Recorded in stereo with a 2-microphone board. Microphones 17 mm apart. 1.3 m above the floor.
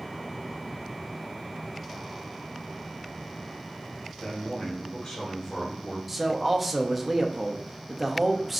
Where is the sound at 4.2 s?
70° left (ahead or behind), 2.5 m; by 6.0 s 80° left, 2 m.